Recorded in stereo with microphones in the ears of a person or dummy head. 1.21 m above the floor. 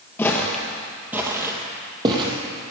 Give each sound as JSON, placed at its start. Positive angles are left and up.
{"t": 0.2, "sound": "footsteps", "side_deg": 5, "distance_m": 1.8}